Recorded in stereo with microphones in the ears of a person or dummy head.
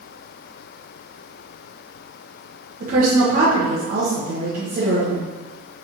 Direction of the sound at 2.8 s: 40° right (ahead or behind).